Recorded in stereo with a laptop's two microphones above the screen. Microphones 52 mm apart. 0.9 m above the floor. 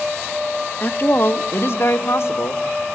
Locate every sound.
0.8 s a woman speaking: 40° left (ahead or behind), 1.1 m; by 2.8 s 65° left (ahead or behind), 1.9 m